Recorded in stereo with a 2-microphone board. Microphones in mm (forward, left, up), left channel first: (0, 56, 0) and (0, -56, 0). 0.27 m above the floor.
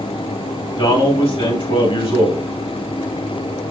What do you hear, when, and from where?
0.8 s a man speaking: 55° left (ahead or behind), 2.5 m